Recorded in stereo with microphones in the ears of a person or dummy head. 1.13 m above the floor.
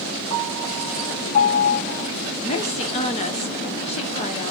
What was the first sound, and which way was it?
A piano, 35° left (ahead or behind).